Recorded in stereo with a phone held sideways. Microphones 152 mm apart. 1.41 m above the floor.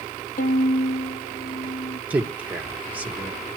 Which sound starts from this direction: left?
A violin, at 0.4 s.